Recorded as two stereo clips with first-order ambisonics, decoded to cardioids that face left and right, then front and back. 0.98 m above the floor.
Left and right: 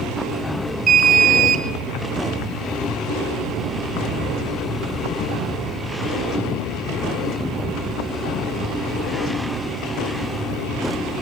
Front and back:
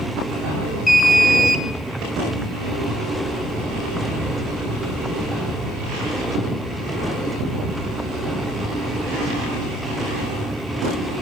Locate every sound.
0.9 s an alarm: 70° right, 0.6 m